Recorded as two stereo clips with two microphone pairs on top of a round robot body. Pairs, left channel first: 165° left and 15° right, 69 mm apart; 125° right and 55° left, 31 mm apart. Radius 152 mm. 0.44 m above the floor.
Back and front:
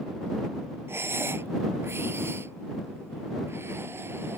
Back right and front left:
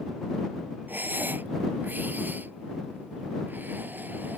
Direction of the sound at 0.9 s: 40° left.